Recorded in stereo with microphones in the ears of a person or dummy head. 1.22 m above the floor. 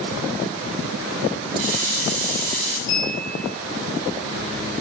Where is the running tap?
80° right, 3 m.